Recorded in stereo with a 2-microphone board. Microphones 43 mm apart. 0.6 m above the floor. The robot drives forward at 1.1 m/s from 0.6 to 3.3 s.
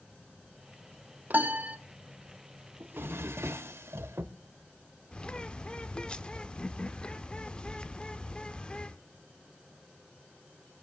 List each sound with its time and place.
1.3 s a piano: 45° right (ahead or behind), 0.7 m; by 1.8 s 35° right (ahead or behind), 0.9 m
2.8 s a drawer: 55° right (ahead or behind), 0.9 m; by 4.3 s 85° right, 0.7 m
5.1 s a bird: 20° left (ahead or behind), 0.5 m